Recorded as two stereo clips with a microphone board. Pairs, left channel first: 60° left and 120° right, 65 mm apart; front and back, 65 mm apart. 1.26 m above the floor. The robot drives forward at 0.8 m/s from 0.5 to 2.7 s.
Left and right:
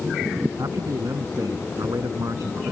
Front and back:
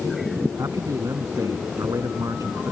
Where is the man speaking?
150° right.